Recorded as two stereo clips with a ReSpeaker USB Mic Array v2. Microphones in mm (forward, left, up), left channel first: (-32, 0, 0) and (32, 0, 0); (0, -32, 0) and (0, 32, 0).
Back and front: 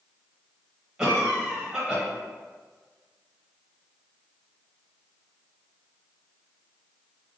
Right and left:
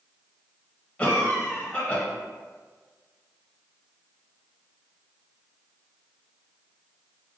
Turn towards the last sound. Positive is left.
turn(degrees=-55)